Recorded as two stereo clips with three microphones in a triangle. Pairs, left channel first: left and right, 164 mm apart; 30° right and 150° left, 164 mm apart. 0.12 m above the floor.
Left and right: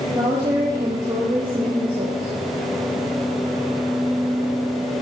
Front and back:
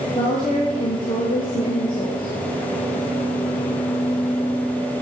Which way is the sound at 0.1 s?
30° right.